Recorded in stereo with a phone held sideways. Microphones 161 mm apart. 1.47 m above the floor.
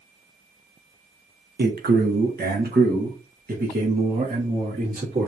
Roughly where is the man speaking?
Right.